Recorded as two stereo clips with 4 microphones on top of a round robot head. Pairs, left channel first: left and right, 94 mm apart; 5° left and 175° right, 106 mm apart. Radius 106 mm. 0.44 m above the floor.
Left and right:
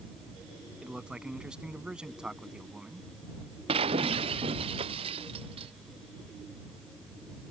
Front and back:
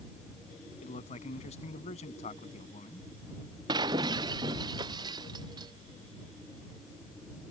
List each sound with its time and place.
0.8 s a man speaking: 10° right
3.7 s breaking glass: 120° right